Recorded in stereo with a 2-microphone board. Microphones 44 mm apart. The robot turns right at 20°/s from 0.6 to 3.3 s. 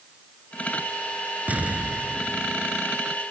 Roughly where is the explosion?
Right.